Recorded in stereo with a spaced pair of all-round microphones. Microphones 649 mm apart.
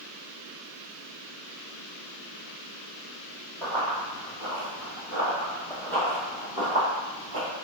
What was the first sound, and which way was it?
Running footsteps, 50° left (ahead or behind).